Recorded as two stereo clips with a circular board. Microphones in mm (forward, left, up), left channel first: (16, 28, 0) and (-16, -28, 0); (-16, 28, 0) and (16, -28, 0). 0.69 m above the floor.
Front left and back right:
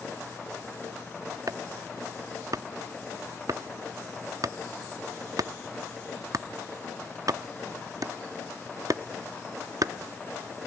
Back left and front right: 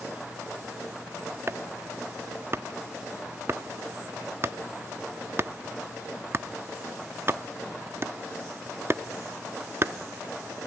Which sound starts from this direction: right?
Chopping, at 1.5 s.